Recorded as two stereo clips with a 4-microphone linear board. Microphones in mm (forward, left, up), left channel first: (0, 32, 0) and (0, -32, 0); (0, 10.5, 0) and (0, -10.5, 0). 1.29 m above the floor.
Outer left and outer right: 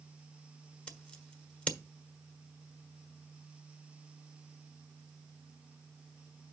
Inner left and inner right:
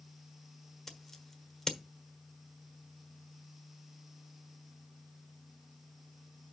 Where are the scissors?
20° left (ahead or behind), 1.3 m.